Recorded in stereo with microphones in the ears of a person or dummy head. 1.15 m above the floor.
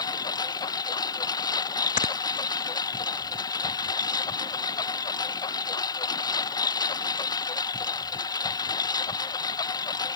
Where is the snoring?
35° left (ahead or behind).